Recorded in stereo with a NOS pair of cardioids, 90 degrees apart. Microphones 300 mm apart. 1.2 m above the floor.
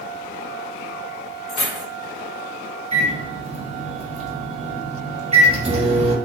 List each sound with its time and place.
1.5 s keys jangling: 65° left, 1.2 m
2.9 s a microwave: 20° right, 1.0 m